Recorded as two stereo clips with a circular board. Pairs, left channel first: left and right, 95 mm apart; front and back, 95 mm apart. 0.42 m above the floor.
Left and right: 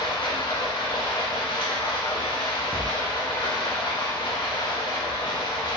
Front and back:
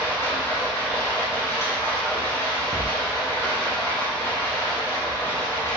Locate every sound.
0.0 s running water: 60° left, 1.8 m
2.7 s a thud: 140° right, 1.1 m